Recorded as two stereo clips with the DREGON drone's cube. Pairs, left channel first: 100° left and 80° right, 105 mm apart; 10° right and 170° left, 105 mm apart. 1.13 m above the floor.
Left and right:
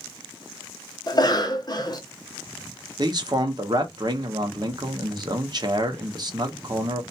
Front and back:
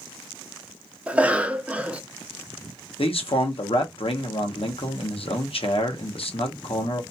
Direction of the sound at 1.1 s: 95° left.